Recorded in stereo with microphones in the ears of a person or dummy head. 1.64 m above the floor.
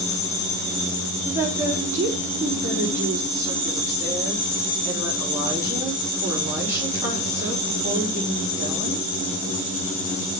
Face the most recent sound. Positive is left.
turn(degrees=-15)  # may be behind; listen again after turning